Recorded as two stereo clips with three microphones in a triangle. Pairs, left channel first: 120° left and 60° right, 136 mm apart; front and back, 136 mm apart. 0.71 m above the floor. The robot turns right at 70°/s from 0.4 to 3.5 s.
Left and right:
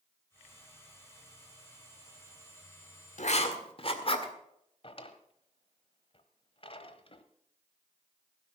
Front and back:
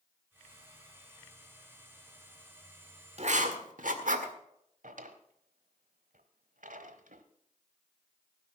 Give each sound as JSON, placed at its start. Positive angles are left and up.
{"t": 3.2, "sound": "writing", "azimuth_deg": 145, "distance_m": 1.7}
{"t": 4.8, "sound": "a drawer", "azimuth_deg": 165, "distance_m": 1.2}